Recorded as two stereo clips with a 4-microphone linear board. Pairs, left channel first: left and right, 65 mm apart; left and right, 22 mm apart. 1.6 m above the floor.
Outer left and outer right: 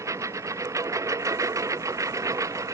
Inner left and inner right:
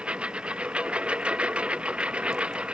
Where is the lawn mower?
55° right (ahead or behind).